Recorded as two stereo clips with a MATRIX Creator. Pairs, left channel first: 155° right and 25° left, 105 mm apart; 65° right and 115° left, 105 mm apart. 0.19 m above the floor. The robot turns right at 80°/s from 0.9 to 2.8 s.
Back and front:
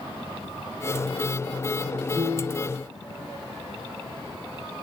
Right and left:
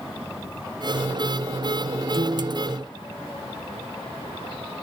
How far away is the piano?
About 5.5 m.